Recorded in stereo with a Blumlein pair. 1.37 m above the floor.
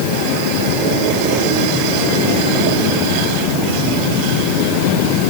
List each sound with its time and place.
Only background noise.